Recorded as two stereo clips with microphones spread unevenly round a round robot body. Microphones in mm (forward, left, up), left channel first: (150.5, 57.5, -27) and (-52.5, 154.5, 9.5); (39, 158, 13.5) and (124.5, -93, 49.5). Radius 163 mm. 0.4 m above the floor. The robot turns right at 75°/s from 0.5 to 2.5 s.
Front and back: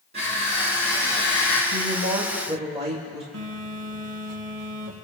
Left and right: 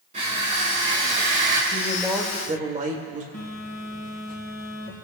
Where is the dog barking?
I don't hear a dog barking.